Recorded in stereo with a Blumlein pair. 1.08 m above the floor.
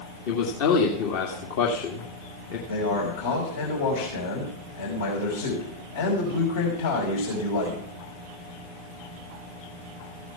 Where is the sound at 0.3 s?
50° left, 2 m.